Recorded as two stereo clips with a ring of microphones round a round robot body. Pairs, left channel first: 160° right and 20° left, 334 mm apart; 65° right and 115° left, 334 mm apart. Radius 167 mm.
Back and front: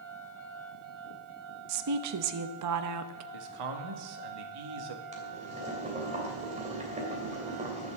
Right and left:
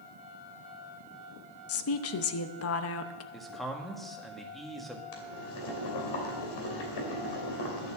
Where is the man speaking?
20° left, 1.6 m.